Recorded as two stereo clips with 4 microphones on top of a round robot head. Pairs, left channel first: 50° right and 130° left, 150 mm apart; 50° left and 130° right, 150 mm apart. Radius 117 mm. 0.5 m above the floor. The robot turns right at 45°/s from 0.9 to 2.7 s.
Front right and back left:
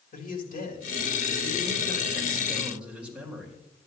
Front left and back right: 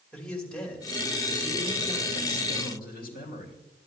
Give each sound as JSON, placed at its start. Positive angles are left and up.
{"t": 0.1, "sound": "a man speaking", "azimuth_deg": -35, "distance_m": 3.0}